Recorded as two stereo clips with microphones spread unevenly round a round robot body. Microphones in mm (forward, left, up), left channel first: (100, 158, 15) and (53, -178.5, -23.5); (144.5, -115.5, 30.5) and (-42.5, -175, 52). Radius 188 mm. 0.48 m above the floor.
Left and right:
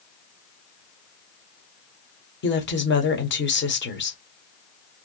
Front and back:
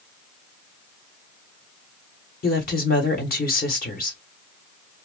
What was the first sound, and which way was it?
A woman speaking, 25° left.